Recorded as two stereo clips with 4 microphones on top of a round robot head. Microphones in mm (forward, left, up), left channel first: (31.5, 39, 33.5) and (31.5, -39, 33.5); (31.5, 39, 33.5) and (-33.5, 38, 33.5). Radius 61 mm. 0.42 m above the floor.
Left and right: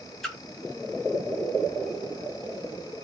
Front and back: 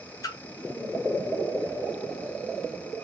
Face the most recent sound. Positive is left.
turn(degrees=5)